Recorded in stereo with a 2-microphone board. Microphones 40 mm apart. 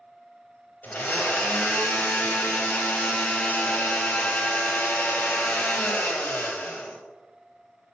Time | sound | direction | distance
0.8 | a blender | 50° left (ahead or behind) | 0.6 m